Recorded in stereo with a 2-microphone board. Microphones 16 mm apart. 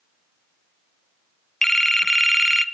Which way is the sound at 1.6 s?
20° left (ahead or behind).